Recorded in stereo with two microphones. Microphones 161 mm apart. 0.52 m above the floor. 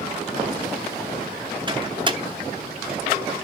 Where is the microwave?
30° right (ahead or behind), 0.8 m.